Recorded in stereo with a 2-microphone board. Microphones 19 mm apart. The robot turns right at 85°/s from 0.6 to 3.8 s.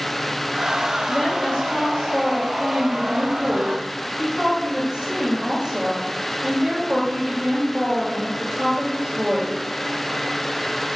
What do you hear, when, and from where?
1.1 s a woman speaking: 25° left, 2 m; by 9.6 s 105° right, 2 m